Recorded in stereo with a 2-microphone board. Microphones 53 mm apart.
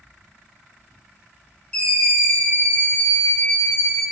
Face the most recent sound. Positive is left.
turn(degrees=60)  # may be behind; listen again after turning